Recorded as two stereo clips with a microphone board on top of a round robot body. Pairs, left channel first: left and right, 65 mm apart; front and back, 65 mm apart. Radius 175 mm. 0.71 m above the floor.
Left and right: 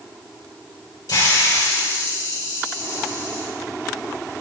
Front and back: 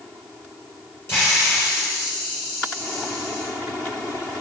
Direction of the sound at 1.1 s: 55° left.